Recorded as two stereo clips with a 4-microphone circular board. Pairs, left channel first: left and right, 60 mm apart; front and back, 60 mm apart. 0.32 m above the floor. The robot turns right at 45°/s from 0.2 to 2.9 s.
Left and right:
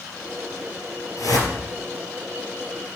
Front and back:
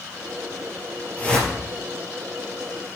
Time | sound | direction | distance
1.2 | a whoosh | 65° left | 3 m